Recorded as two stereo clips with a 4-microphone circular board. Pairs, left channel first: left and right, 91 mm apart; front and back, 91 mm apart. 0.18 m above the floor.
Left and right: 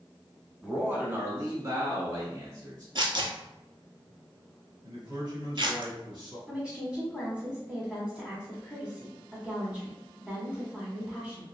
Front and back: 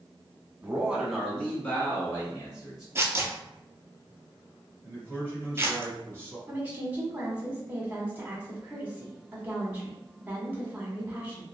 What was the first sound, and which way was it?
A man speaking, 145° right.